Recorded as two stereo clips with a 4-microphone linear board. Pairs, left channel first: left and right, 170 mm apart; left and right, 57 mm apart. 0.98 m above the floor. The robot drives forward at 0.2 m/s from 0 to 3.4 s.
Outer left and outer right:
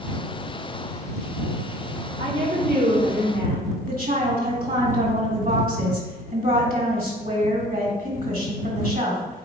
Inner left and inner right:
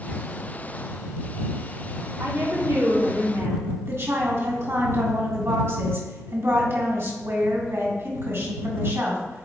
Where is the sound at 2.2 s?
80° right, 2 m; by 3.8 s 85° right, 2 m.